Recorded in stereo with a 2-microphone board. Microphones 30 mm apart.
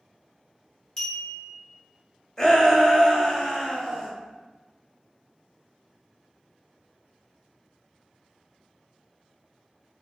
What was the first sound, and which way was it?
A clink, 25° left (ahead or behind).